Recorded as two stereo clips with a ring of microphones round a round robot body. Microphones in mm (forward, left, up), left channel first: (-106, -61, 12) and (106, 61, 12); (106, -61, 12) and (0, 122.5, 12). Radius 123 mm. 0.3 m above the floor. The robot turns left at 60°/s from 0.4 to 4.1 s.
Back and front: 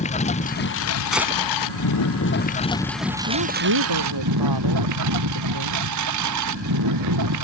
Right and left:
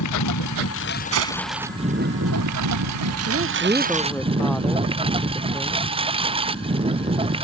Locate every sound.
0.0 s a lawn mower: 85° right; by 7.5 s 55° left
1.1 s a gunshot: 120° left; by 1.4 s 100° left
3.3 s a woman speaking: 75° left; by 5.8 s 25° left